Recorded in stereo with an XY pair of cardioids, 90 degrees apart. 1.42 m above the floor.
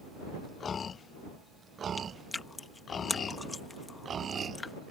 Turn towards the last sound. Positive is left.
turn(degrees=30)